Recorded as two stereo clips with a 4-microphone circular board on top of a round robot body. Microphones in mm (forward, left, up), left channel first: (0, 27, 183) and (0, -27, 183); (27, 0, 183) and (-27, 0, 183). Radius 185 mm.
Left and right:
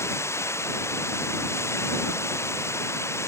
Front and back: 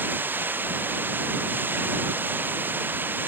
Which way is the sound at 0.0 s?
125° left.